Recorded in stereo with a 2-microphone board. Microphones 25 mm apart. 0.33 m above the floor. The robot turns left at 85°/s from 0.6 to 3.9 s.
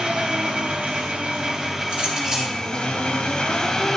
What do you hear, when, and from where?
0.0 s an engine running: 65° right, 1.2 m; by 4.0 s 15° left, 1.2 m
1.9 s a clink: 130° right, 4 m; by 2.6 s 175° left, 4 m